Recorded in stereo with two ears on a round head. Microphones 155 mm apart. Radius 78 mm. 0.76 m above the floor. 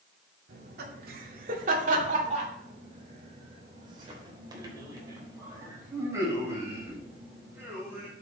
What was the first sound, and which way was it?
Laughter, 65° right (ahead or behind).